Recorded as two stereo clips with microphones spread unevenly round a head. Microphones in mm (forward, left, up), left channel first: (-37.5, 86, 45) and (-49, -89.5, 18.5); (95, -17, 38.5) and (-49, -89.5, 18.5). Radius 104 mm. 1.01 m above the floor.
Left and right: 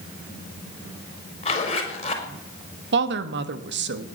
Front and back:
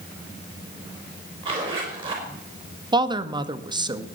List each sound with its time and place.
1.4 s a zipper: 145° left, 4.5 m
2.9 s a woman speaking: 95° right, 1.5 m